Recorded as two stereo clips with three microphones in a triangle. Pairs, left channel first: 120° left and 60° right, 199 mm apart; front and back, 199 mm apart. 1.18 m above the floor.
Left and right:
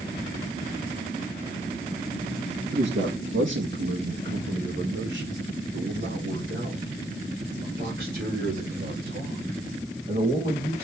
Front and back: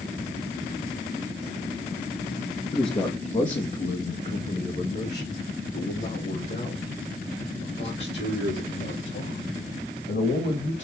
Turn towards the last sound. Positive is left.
turn(degrees=-20)